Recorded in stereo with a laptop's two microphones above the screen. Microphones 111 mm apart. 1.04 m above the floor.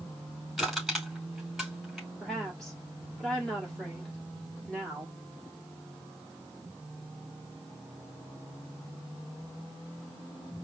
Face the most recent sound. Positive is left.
turn(degrees=5)  # may be behind; listen again after turning